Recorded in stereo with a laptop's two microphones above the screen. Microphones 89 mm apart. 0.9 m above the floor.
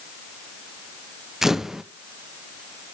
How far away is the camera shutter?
About 0.6 m.